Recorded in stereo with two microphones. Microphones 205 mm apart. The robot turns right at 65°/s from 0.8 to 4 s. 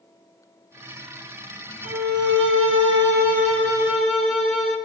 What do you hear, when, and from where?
1.8 s a violin: 140° right, 2.5 m; by 4.8 s straight ahead, 2.5 m